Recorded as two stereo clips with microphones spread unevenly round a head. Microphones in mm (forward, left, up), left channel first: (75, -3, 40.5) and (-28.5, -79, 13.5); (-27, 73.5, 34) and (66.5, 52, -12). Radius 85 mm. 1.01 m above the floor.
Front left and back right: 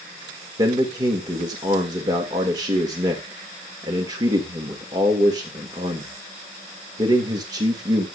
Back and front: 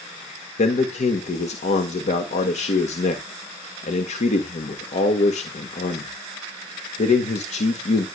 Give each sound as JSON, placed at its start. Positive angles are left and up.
{"t": 0.6, "sound": "a man speaking", "azimuth_deg": 155, "distance_m": 1.6}